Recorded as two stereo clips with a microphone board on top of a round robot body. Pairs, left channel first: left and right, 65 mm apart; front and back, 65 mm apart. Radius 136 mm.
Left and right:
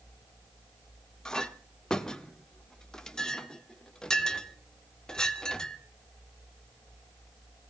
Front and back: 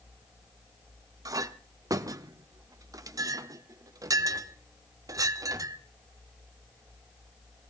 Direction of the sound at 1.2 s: 170° left.